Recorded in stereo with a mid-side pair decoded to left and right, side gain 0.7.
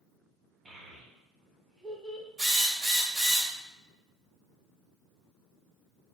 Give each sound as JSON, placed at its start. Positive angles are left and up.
{"t": 0.7, "sound": "a child speaking", "azimuth_deg": -10, "distance_m": 1.1}
{"t": 2.4, "sound": "a drill", "azimuth_deg": -20, "distance_m": 1.6}